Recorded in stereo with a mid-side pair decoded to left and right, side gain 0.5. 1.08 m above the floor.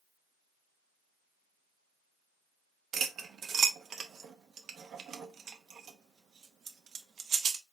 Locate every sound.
2.9 s cutlery clinking: 55° right, 0.7 m